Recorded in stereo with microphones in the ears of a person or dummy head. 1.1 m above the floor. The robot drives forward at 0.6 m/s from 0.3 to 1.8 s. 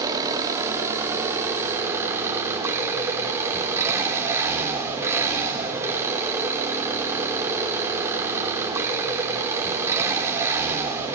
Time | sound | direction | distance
0.0 | an engine running | 15° right (ahead or behind) | 2 m